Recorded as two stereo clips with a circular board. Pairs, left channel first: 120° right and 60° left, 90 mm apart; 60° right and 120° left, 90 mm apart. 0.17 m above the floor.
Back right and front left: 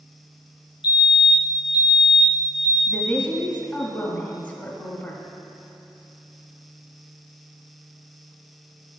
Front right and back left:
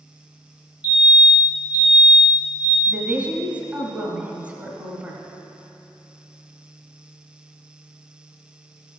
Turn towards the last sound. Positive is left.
turn(degrees=175)